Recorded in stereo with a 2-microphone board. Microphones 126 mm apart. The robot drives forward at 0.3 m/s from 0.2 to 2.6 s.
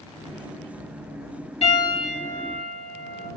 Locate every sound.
1.6 s a piano: 50° left (ahead or behind), 1.7 m; by 3.3 s 45° left (ahead or behind), 1.8 m